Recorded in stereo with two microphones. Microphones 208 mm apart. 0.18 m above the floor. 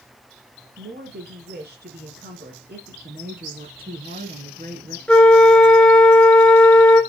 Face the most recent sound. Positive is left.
turn(degrees=5)  # may be behind; listen again after turning